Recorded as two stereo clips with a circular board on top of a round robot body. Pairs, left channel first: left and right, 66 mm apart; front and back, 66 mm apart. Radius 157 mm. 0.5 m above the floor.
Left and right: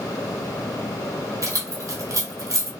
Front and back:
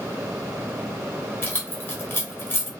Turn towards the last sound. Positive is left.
turn(degrees=-55)